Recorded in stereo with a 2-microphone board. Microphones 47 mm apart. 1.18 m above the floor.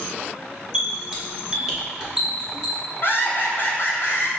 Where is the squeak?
15° right (ahead or behind), 1.1 m.